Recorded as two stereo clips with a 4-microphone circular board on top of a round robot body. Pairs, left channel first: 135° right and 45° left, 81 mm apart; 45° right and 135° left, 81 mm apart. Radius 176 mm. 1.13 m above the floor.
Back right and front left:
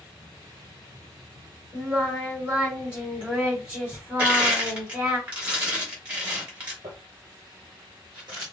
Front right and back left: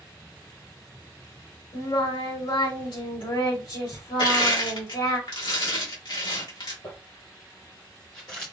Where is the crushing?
30° right, 2.5 m.